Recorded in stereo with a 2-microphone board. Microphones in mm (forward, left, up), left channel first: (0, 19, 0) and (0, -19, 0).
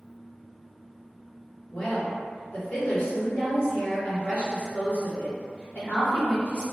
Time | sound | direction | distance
1.7 | a woman speaking | 45° left (ahead or behind) | 1.5 m